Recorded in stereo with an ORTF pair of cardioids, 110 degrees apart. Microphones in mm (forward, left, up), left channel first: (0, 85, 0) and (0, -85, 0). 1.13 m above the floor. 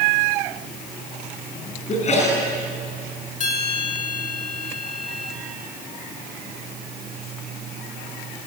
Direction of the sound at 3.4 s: 50° left.